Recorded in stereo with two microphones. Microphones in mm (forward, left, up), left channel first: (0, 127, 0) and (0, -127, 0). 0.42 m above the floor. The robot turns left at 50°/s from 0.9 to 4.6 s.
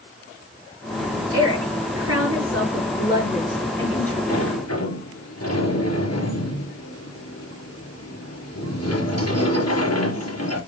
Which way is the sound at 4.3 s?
65° left (ahead or behind).